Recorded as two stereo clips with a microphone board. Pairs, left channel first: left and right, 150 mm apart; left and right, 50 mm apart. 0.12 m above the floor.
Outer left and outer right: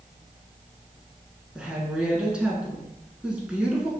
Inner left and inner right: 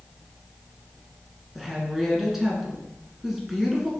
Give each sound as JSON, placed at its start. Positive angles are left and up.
{"t": 1.6, "sound": "a woman speaking", "side_deg": -5, "distance_m": 1.2}